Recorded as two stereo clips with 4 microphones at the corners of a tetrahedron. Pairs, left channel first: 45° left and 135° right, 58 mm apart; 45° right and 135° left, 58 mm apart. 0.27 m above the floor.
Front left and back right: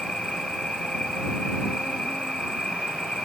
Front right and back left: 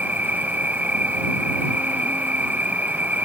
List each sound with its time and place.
0.0 s an insect: 110° left